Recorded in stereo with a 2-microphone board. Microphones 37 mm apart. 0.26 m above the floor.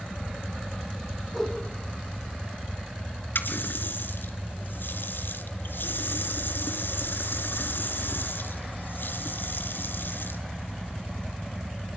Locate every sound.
1.3 s a whoosh: 5° left (ahead or behind), 6.5 m
3.4 s a running tap: 70° left (ahead or behind), 2.5 m